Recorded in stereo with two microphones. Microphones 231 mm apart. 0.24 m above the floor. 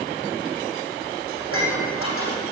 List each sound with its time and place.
1.4 s dishes clattering: 80° left, 7.5 m